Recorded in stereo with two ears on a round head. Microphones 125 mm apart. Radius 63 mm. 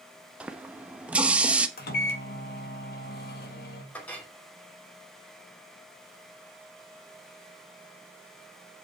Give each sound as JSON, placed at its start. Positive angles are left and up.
{"t": 0.4, "sound": "a running tap", "side_deg": -10, "distance_m": 0.9}
{"t": 1.8, "sound": "a microwave", "side_deg": 75, "distance_m": 1.9}
{"t": 3.9, "sound": "a clink", "side_deg": 10, "distance_m": 3.0}